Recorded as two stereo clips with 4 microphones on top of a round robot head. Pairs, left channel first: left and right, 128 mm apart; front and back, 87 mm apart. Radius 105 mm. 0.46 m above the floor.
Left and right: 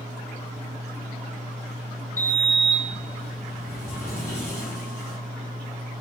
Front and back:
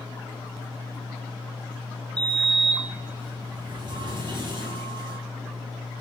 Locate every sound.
2.2 s a sliding door: 160° left, 0.9 m